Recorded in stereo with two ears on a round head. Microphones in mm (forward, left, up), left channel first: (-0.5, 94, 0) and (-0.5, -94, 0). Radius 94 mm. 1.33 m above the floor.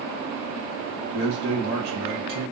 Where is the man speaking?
50° right (ahead or behind), 1.3 m.